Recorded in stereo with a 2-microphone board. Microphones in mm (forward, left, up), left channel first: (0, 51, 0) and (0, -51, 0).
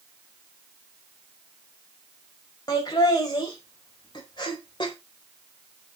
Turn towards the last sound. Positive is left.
turn(degrees=50)  # may be behind; listen again after turning